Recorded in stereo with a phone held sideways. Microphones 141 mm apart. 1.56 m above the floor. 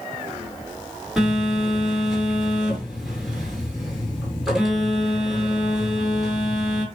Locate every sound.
1.2 s a phone buzzing: 5° right (ahead or behind), 5.5 m